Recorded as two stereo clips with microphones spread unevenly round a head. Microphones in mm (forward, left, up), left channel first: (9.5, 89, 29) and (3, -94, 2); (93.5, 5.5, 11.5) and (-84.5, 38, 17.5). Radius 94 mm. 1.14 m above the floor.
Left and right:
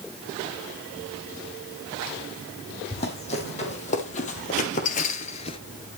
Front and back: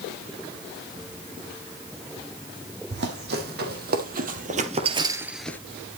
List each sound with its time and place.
2.9 s running footsteps: 145° left, 4.5 m; by 5.6 s 60° left, 1.3 m